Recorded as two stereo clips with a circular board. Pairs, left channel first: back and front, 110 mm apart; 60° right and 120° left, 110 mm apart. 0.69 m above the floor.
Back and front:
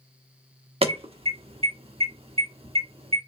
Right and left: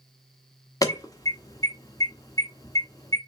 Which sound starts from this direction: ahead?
An alarm, at 0.8 s.